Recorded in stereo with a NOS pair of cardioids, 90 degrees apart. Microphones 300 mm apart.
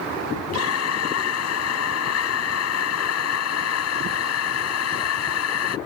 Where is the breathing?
60° left.